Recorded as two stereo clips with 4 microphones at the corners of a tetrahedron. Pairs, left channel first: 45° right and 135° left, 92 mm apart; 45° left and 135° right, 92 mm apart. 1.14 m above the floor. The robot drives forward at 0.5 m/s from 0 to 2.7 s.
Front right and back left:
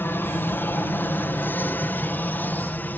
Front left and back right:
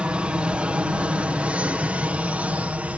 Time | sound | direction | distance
0.0 | an aircraft | 70° right | ?